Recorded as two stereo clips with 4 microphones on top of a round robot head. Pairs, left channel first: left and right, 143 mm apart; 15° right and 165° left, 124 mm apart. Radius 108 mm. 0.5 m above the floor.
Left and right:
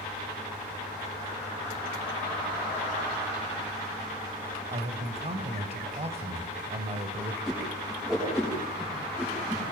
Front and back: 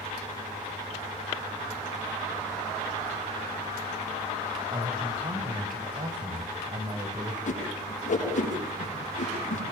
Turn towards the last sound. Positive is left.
turn(degrees=0)